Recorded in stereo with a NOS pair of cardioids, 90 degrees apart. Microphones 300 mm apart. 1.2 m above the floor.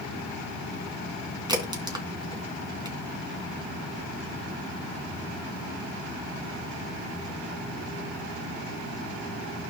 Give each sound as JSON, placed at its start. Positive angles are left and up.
{"t": 1.5, "sound": "a crack", "azimuth_deg": -15, "distance_m": 3.0}